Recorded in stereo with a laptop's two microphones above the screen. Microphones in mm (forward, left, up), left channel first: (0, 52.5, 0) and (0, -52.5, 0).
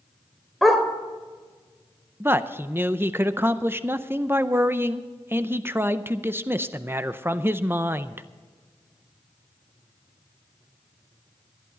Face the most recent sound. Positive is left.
turn(degrees=-20)  # may be behind; listen again after turning